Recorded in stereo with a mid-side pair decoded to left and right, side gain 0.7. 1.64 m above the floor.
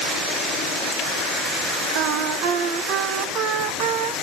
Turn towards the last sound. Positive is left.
turn(degrees=-65)